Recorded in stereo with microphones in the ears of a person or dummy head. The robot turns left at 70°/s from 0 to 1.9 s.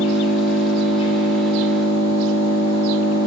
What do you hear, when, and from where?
0.0 s an engine running: 105° left, 3 m; by 3.3 s 25° right, 3 m